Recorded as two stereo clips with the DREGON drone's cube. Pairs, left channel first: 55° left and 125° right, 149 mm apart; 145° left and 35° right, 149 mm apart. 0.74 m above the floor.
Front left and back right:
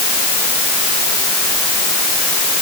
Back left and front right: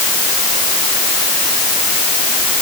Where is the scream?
I don't hear a scream.